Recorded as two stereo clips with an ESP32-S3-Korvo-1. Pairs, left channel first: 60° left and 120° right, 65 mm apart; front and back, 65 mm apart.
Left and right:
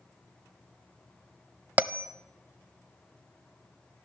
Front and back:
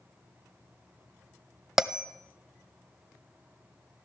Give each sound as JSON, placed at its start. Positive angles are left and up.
{"t": 1.8, "sound": "a bell", "azimuth_deg": -105, "distance_m": 0.6}